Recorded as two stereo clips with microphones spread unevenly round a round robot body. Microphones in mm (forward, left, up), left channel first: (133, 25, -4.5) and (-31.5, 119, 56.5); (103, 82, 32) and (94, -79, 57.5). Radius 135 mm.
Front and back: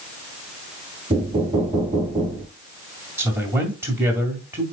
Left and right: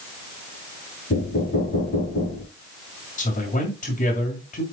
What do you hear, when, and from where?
1.1 s knocking: 85° left, 3.5 m
3.2 s a man speaking: 65° left, 2 m